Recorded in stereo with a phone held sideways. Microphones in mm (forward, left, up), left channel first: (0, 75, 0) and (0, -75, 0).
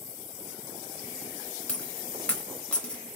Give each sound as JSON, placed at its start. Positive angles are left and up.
{"t": 1.7, "sound": "a dropped coin", "side_deg": 5, "distance_m": 0.9}